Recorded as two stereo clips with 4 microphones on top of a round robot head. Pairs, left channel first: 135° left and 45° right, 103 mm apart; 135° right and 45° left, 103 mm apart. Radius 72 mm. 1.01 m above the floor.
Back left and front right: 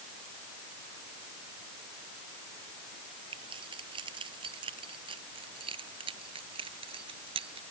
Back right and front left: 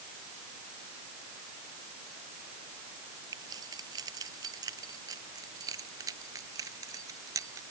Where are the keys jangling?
5° right; by 7.6 s 10° right.